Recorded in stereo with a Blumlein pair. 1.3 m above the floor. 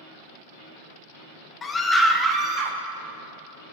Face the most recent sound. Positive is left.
turn(degrees=-35)